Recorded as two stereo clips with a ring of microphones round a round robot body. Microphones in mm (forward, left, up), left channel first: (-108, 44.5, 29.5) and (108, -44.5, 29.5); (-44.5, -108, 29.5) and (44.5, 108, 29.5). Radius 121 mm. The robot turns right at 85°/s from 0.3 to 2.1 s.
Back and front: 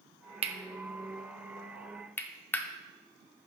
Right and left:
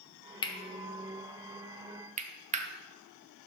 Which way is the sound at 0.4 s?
60° right.